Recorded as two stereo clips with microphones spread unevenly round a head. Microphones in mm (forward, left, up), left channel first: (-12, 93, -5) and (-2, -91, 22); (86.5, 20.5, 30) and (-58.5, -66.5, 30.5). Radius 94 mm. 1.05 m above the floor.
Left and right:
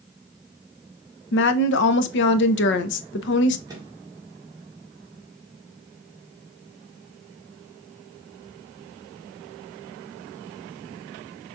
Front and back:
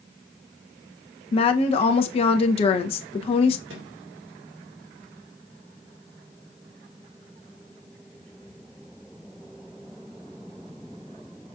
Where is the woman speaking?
85° left, 0.7 m.